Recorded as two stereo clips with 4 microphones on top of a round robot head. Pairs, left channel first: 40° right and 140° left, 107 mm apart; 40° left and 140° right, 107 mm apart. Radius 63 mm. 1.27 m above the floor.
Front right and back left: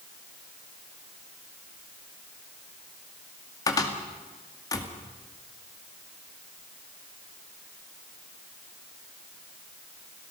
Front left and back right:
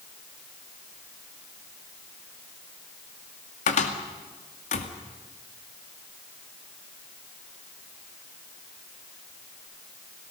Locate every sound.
3.7 s a cupboard door: 20° left, 2 m